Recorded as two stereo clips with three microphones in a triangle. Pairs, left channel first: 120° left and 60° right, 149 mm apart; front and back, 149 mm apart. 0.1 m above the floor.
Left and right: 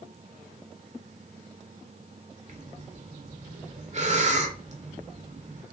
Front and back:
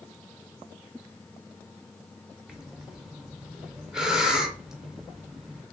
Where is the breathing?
95° right, 0.5 m.